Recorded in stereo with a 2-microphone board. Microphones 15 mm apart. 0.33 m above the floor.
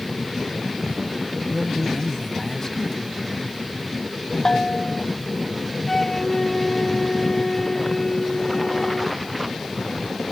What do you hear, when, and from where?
1.5 s a man speaking: 30° left (ahead or behind)
4.5 s a bell: 40° left (ahead or behind)
5.9 s a flute: 25° left (ahead or behind)